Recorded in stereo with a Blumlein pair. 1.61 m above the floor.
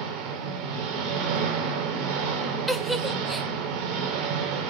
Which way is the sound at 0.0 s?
35° right.